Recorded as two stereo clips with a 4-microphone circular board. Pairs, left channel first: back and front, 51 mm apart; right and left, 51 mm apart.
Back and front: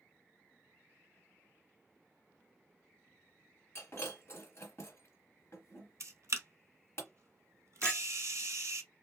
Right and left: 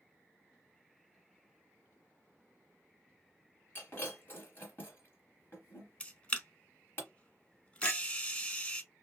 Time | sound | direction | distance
3.8 | breaking glass | 140° right | 1.6 m
6.0 | a camera shutter | 25° right | 0.7 m
7.8 | a clink | 110° right | 1.2 m